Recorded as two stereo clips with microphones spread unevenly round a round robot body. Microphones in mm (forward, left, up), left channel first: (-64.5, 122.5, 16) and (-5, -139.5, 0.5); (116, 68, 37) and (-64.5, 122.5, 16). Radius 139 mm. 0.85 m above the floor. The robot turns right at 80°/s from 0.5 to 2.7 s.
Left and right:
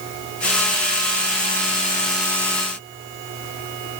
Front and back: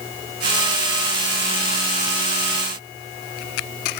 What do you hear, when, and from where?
Only background noise.